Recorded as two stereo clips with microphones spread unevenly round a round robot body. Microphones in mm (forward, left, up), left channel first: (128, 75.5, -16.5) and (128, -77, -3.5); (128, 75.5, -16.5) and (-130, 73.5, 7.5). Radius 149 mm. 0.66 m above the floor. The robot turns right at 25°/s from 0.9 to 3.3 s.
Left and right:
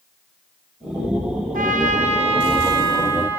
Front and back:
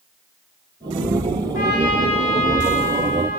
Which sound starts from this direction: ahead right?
A trumpet, at 1.5 s.